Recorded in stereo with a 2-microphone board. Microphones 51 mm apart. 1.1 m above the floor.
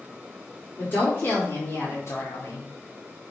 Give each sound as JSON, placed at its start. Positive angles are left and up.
{"t": 0.8, "sound": "a woman speaking", "side_deg": 35, "distance_m": 3.0}